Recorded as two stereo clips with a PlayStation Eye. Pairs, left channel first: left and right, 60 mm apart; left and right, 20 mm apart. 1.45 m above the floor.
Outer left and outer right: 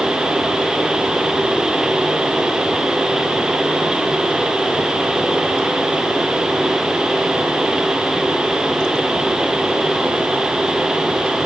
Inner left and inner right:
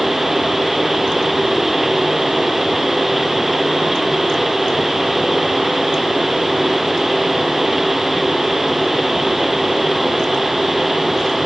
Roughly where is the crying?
I don't hear crying.